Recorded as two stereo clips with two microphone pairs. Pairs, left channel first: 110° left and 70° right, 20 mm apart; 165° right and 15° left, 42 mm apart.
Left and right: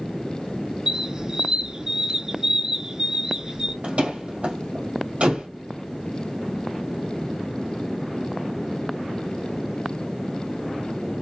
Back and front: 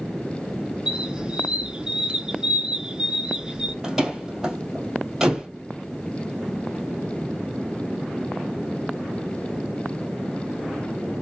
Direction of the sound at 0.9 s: 40° right.